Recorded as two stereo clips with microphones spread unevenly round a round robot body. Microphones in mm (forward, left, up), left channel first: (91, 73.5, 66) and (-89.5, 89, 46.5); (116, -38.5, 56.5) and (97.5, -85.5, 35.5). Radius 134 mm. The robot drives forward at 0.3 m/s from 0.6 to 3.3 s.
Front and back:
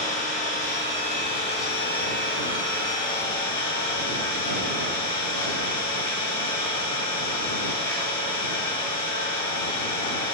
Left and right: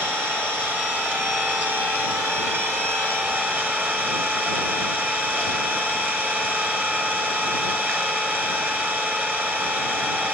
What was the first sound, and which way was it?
An engine running, 60° right.